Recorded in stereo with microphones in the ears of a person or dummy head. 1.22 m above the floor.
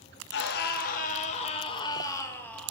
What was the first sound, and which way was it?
A scream, 60° left (ahead or behind).